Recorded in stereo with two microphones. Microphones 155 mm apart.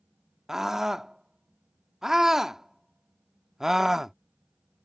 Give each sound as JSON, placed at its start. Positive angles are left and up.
{"t": 0.5, "sound": "a scream", "side_deg": -5}